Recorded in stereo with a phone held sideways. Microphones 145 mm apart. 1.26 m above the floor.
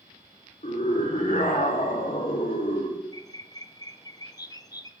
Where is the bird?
25° left (ahead or behind), 0.6 m.